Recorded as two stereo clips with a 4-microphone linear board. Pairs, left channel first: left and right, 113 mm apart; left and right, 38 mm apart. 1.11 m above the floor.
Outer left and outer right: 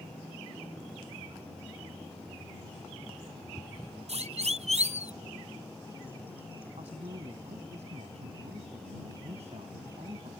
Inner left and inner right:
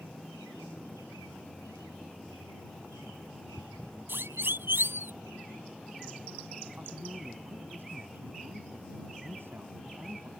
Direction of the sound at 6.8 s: 75° right (ahead or behind).